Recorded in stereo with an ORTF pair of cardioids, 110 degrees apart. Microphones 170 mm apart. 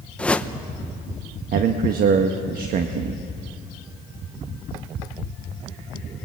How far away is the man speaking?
About 1.3 m.